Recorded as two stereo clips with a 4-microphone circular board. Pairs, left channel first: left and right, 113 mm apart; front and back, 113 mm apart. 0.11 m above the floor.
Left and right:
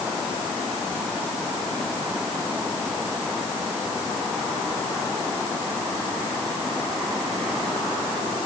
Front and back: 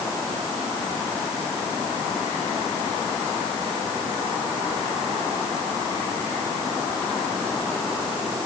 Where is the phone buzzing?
I don't hear a phone buzzing.